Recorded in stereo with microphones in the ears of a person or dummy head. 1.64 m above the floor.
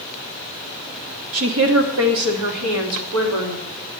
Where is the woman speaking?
70° right (ahead or behind), 1.7 m; by 3.7 s 80° right, 3.5 m.